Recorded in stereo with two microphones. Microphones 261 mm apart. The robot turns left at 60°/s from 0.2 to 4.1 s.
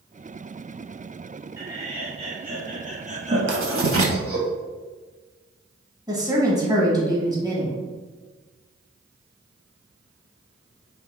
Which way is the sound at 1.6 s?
10° right (ahead or behind).